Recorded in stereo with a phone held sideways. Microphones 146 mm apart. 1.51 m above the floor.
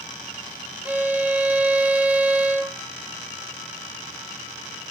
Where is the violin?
10° right (ahead or behind), 0.9 m.